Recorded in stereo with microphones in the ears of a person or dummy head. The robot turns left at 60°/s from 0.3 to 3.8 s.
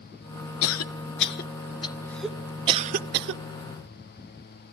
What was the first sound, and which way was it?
A cough, 60° left (ahead or behind).